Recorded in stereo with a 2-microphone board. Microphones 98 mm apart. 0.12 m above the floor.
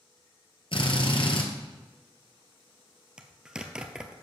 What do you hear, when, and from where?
0.7 s a drill: 60° left (ahead or behind), 1.7 m
3.2 s a zipper: 10° right (ahead or behind), 0.9 m